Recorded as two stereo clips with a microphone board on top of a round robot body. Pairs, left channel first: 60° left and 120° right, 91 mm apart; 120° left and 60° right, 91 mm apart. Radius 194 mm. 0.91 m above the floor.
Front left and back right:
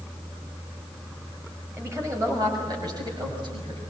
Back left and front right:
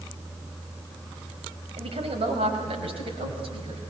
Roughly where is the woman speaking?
Ahead right.